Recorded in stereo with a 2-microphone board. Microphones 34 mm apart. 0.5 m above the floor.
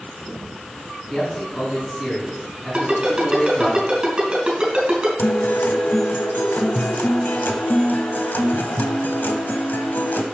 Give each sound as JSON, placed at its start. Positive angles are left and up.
{"t": 1.1, "sound": "a man speaking", "side_deg": 15, "distance_m": 4.0}
{"t": 2.7, "sound": "a ringtone", "side_deg": -25, "distance_m": 3.5}
{"t": 5.2, "sound": "a guitar", "side_deg": 85, "distance_m": 1.0}